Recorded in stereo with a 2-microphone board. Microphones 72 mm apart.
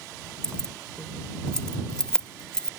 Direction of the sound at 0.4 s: 10° left (ahead or behind).